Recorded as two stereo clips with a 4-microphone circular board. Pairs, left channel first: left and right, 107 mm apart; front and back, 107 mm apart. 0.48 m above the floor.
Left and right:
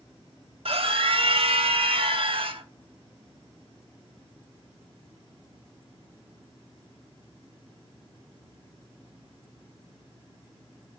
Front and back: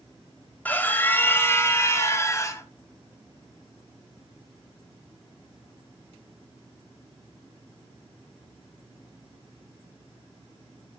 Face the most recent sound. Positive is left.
turn(degrees=-60)